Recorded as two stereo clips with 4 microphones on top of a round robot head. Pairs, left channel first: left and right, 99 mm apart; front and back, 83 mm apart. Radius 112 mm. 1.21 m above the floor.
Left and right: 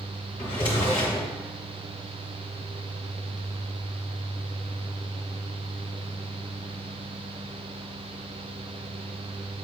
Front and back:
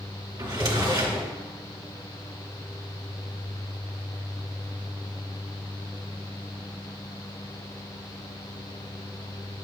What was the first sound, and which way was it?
A drawer, 145° left.